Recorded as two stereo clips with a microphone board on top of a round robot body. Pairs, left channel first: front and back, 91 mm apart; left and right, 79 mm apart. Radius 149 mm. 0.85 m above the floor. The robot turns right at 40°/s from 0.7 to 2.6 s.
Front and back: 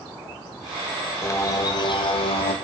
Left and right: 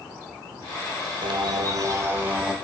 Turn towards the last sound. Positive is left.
turn(degrees=-5)